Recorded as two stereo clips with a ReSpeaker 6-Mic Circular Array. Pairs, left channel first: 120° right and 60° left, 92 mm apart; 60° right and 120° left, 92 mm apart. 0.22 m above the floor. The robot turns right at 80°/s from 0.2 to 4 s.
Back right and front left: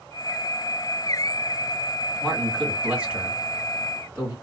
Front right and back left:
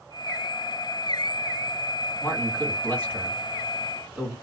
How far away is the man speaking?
About 1.8 m.